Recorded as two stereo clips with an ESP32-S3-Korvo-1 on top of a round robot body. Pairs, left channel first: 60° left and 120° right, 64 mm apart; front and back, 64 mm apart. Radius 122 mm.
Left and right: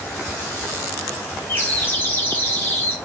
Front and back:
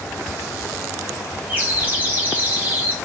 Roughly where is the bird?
Behind left.